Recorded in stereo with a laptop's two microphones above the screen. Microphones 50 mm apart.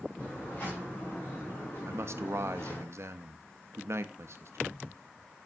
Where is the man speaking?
60° right (ahead or behind), 0.8 m.